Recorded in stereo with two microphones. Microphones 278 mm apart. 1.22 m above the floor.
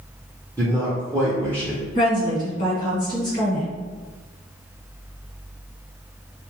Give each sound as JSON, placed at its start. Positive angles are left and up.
{"t": 0.6, "sound": "a man speaking", "side_deg": -10, "distance_m": 0.6}
{"t": 1.9, "sound": "a woman speaking", "side_deg": 30, "distance_m": 1.4}